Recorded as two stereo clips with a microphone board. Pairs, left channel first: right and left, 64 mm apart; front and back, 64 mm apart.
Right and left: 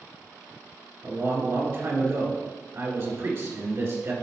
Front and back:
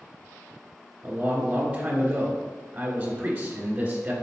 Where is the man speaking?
120° left, 2 m.